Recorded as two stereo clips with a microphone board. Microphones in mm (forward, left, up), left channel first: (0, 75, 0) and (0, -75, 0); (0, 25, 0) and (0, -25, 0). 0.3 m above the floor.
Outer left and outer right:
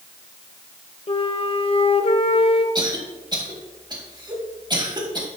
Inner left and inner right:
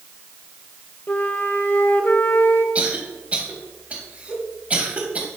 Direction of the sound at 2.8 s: 30° right (ahead or behind).